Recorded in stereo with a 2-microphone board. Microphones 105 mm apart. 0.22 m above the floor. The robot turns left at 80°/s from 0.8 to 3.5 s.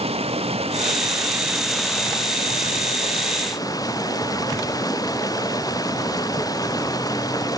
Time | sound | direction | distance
0.0 | running water | 110° right | ?